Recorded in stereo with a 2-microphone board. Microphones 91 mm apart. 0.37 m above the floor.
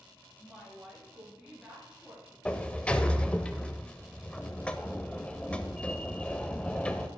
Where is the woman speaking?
5° right (ahead or behind), 5.5 m; by 2.4 s 15° right (ahead or behind), 4 m.